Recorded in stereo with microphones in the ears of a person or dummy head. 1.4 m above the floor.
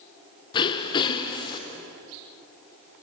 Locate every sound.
0.5 s throat clearing: 30° left (ahead or behind), 1.2 m